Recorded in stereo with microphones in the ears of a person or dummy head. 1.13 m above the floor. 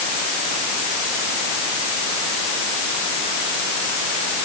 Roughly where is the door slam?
No door slam in this recording.